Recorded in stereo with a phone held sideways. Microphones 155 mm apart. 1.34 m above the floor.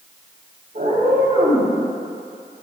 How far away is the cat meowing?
About 4.5 m.